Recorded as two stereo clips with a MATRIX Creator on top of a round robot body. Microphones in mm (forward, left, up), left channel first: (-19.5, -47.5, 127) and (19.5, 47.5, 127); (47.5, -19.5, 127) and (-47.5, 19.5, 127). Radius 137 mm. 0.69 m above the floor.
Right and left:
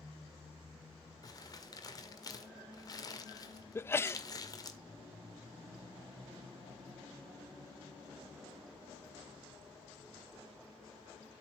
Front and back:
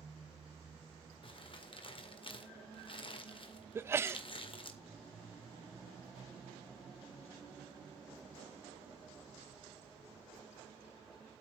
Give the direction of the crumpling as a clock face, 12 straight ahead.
2 o'clock.